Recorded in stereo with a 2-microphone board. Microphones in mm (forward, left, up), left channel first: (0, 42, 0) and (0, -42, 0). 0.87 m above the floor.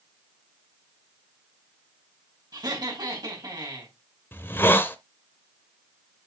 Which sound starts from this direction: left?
A hiss, at 4.3 s.